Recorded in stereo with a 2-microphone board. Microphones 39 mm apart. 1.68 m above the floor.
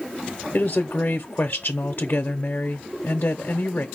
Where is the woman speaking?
50° left (ahead or behind), 0.6 m.